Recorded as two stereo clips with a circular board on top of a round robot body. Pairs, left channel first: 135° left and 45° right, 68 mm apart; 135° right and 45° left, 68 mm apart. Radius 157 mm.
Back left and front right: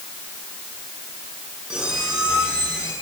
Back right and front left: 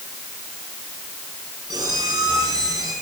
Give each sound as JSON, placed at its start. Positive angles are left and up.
{"t": 1.7, "sound": "a squeak", "azimuth_deg": 35, "distance_m": 7.0}